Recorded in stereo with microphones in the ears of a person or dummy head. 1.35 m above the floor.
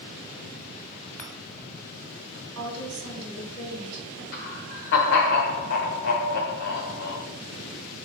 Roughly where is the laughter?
Left.